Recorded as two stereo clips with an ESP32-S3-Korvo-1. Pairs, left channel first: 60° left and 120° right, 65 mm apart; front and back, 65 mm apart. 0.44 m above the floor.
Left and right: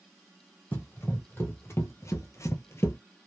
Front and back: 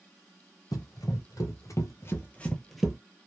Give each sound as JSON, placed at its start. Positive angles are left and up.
{"t": 0.7, "sound": "running footsteps", "azimuth_deg": 0, "distance_m": 1.1}